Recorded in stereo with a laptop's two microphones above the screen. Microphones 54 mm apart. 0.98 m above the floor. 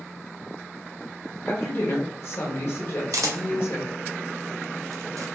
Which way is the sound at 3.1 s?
85° right.